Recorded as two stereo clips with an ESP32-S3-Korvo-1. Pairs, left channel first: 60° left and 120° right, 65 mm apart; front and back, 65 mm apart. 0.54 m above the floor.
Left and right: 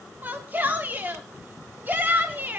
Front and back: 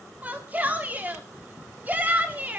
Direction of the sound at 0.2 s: 145° right.